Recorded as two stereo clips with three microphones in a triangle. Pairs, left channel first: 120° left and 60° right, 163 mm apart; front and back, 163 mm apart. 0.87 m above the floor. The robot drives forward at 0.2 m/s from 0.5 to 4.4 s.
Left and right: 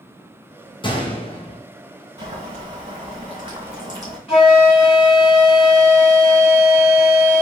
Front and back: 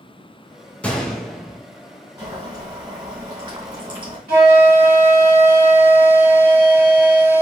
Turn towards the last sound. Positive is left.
turn(degrees=175)